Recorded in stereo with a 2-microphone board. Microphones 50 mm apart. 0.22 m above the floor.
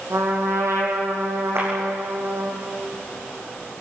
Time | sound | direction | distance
0.1 | a trumpet | 75° right (ahead or behind) | 4.5 m
1.6 | a clap | 65° right (ahead or behind) | 9.5 m